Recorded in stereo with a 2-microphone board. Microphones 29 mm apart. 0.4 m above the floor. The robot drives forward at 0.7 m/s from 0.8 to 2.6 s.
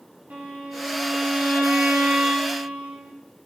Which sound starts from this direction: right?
A violin, at 0.3 s.